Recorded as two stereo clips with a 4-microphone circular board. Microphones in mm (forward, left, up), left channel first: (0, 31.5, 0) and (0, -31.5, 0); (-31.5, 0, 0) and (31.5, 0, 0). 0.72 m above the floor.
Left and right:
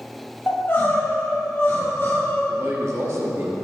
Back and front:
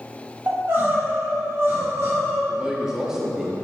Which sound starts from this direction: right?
A man speaking, at 2.5 s.